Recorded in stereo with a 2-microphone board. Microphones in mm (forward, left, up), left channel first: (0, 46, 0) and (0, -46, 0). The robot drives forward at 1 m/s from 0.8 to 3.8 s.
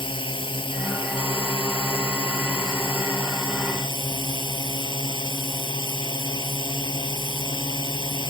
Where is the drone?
65° left (ahead or behind); by 8.3 s 60° left (ahead or behind).